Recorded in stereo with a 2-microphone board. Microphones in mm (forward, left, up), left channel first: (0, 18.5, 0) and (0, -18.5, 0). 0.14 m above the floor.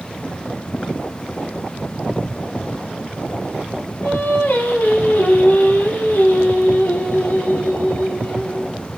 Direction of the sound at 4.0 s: 55° left (ahead or behind).